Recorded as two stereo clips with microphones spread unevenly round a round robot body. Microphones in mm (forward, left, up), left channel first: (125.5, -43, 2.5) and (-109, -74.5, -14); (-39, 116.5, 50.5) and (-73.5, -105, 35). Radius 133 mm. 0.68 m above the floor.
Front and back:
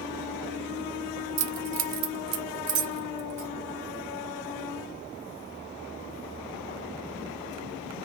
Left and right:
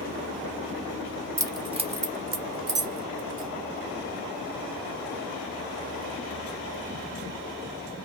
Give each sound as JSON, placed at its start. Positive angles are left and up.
{"t": 1.4, "sound": "keys jangling", "azimuth_deg": -175, "distance_m": 0.9}